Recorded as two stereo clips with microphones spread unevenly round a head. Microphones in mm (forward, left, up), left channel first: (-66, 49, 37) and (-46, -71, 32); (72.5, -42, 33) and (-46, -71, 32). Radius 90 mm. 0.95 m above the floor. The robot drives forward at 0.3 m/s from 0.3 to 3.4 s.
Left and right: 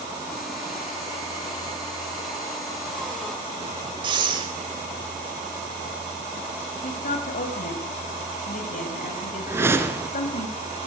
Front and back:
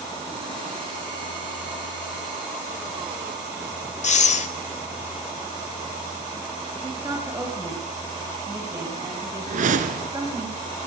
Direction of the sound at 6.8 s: 120° left.